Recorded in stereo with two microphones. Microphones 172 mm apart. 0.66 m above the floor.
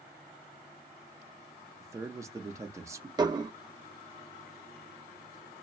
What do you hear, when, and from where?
1.8 s a man speaking: 20° right (ahead or behind), 0.5 m
3.2 s dishes clattering: 25° right (ahead or behind), 0.5 m